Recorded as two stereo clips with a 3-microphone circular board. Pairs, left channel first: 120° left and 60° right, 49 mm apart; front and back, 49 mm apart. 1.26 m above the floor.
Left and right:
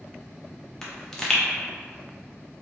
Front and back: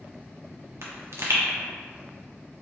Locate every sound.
0.8 s a pop: 160° right, 0.7 m